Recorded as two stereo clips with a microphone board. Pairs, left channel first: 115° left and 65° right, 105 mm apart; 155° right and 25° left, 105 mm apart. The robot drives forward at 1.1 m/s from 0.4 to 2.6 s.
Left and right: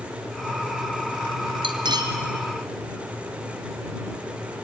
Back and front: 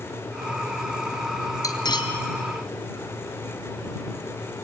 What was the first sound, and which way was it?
Cutlery clinking, 105° right.